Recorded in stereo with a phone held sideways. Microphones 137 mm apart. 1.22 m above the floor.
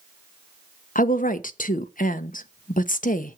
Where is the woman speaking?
80° left, 0.8 m.